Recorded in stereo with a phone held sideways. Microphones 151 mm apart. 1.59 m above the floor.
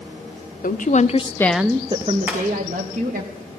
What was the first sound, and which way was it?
A woman speaking, 65° left (ahead or behind).